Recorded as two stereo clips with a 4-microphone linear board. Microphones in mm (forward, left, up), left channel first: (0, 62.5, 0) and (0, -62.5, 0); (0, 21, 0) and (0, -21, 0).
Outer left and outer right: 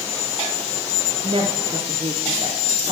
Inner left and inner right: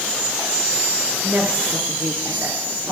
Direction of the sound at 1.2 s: 50° right (ahead or behind).